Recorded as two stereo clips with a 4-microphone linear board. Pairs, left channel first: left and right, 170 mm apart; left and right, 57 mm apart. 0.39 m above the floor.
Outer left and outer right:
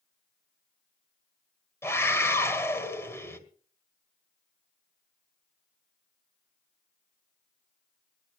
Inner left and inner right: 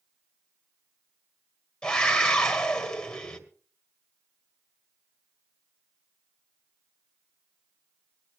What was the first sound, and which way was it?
A scream, 15° left (ahead or behind).